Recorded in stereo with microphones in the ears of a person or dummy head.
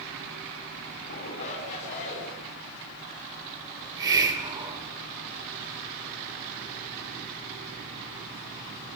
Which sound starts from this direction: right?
A hiss, at 3.8 s.